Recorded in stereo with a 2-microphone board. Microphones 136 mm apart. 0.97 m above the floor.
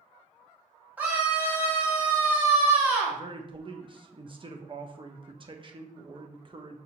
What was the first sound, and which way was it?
A scream, 10° right (ahead or behind).